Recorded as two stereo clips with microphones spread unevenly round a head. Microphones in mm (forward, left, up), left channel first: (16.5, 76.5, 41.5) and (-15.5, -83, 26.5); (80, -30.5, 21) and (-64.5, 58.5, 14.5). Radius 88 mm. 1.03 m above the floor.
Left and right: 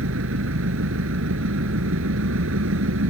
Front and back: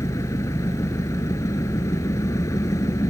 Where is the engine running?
105° right.